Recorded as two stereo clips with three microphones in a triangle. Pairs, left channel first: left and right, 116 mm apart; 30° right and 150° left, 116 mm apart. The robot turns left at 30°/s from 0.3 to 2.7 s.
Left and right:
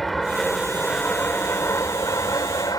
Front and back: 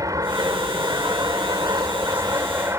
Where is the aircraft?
Straight behind; by 2.8 s 105° left.